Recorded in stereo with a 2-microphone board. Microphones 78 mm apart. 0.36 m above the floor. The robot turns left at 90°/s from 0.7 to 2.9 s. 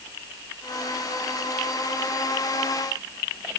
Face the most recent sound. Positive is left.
No sound to turn to.